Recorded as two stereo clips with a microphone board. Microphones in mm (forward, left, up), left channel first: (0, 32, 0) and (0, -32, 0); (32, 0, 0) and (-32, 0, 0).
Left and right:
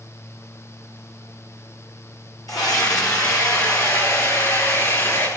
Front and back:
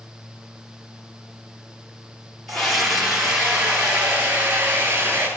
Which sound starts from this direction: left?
A scream, at 2.5 s.